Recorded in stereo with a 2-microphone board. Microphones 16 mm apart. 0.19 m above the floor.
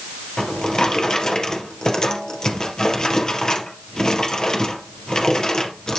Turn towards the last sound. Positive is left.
turn(degrees=45)  # may be behind; listen again after turning